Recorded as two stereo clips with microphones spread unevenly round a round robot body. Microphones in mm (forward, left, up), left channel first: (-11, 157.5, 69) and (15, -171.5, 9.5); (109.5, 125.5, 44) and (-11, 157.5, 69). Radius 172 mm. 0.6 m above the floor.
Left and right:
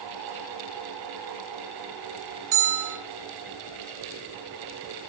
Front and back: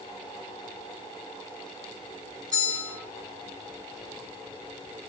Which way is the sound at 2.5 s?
120° right.